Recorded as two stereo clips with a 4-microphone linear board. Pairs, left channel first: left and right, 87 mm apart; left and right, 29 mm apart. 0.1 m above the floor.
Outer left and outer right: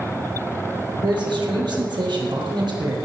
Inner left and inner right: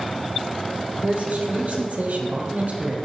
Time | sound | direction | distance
1.0 | a man speaking | 60° right (ahead or behind) | 3.5 m